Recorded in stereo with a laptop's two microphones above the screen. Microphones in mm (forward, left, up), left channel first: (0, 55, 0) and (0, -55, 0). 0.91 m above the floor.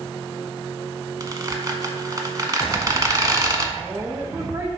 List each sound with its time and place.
1.2 s a squeak: 35° right (ahead or behind), 1.0 m
3.8 s a woman speaking: 25° right (ahead or behind), 1.0 m